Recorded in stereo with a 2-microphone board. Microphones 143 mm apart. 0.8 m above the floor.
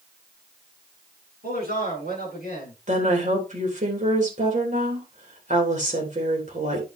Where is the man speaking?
80° right, 7.5 m; by 2.8 s 85° right, 7.5 m.